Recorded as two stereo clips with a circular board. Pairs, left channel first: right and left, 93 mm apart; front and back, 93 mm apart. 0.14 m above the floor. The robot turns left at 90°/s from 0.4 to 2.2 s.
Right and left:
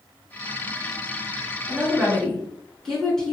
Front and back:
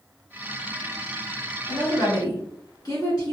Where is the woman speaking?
40° left, 1.6 m; by 3.3 s 10° right, 1.6 m.